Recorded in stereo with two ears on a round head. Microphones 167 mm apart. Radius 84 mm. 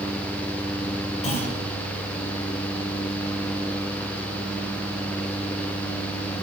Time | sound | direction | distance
1.2 | a clunk | 35° left (ahead or behind) | 6 m